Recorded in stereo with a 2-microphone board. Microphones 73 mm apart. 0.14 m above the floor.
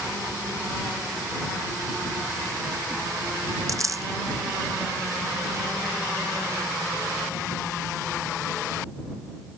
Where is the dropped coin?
50° right (ahead or behind).